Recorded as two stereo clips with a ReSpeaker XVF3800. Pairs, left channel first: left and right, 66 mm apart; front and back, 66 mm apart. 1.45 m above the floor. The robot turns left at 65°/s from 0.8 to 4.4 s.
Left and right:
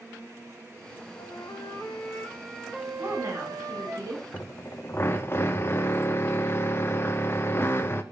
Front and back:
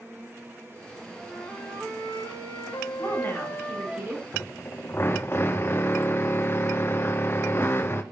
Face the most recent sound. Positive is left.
turn(degrees=40)